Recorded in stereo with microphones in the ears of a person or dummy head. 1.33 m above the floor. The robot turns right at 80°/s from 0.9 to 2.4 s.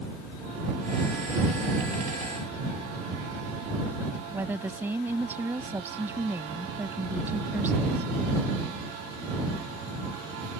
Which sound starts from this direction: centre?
A woman speaking, at 4.3 s.